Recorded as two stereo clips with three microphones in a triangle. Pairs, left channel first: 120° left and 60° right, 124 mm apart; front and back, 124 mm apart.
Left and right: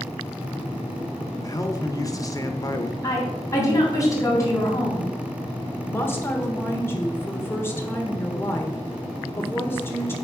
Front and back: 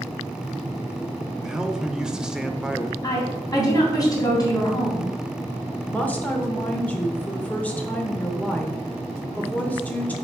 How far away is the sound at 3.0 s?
About 3 m.